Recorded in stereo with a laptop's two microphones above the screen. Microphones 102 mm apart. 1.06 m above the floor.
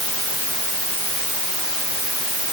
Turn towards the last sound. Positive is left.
No sound to turn to.